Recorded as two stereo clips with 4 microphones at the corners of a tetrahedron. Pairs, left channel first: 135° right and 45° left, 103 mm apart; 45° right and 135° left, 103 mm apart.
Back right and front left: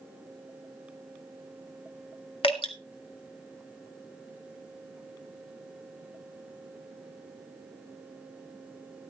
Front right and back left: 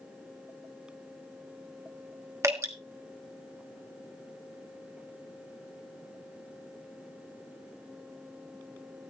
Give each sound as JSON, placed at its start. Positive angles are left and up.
{"t": 2.4, "sound": "dripping", "azimuth_deg": -165, "distance_m": 2.0}